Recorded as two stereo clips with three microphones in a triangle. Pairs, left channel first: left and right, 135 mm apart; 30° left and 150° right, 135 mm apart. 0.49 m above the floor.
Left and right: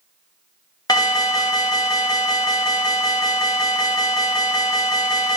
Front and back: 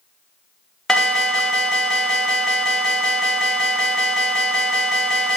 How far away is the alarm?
About 1.0 m.